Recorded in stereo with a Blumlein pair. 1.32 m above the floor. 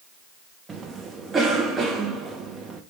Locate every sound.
0.7 s a cough: 15° right, 0.6 m